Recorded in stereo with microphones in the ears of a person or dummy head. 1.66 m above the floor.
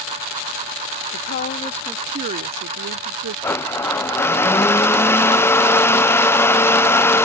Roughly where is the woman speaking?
Left.